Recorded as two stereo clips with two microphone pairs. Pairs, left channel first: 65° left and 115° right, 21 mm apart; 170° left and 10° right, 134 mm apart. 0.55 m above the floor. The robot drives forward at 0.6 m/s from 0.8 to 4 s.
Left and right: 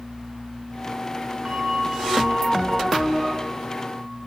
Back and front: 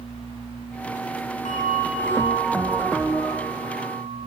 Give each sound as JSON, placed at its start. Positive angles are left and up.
{"t": 1.4, "sound": "a bell", "azimuth_deg": -165, "distance_m": 8.0}